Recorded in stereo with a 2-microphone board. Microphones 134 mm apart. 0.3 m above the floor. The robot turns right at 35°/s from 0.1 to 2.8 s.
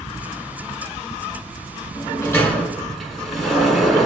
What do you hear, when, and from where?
1.9 s a sliding door: 30° left (ahead or behind), 0.9 m; by 4.1 s centre (ahead or behind), 0.9 m